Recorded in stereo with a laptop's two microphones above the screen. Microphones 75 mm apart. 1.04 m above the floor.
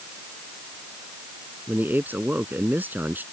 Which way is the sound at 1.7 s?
25° right (ahead or behind).